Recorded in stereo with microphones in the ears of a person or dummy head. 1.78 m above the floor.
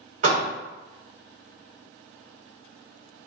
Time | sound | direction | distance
0.2 | a door slam | 45° right (ahead or behind) | 1.0 m